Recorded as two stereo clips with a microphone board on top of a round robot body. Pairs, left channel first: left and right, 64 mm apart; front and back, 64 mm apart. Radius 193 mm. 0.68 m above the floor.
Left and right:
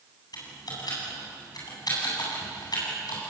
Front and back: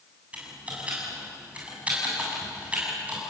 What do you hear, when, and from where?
0.3 s typing on a keyboard: 110° left, 8.5 m